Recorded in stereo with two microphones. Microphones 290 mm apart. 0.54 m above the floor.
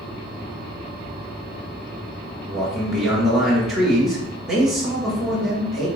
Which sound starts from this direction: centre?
A man speaking, at 2.5 s.